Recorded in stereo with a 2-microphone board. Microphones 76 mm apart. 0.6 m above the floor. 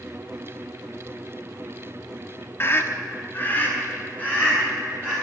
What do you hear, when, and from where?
2.6 s a scream: 30° left (ahead or behind), 1.1 m; by 5.2 s 15° left (ahead or behind), 4 m